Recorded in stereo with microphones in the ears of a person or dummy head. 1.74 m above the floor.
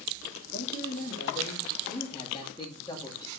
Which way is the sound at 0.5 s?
55° left (ahead or behind).